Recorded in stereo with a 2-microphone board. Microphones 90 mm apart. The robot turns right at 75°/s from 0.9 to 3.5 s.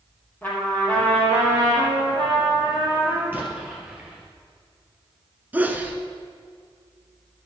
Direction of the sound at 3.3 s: 20° right (ahead or behind).